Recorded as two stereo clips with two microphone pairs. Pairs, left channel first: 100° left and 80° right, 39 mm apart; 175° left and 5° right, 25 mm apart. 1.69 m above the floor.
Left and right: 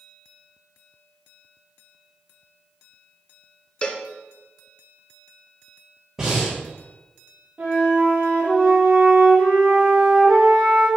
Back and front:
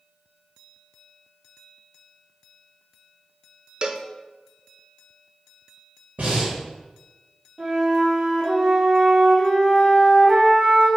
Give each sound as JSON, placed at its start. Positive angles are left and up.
{"t": 3.8, "sound": "a cowbell", "azimuth_deg": 40, "distance_m": 0.6}
{"t": 6.2, "sound": "breathing", "azimuth_deg": -10, "distance_m": 3.0}
{"t": 7.6, "sound": "a flute", "azimuth_deg": -45, "distance_m": 3.0}